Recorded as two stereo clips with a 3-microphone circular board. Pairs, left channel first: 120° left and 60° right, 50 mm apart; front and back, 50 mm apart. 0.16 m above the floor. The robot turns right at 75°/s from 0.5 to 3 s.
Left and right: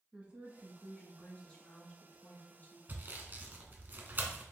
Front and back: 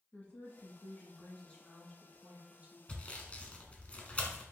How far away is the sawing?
About 0.8 m.